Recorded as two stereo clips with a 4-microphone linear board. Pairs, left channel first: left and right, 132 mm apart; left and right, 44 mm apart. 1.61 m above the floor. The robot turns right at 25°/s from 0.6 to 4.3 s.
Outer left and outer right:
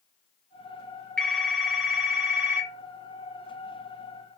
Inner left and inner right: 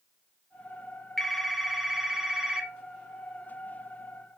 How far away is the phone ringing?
About 0.7 m.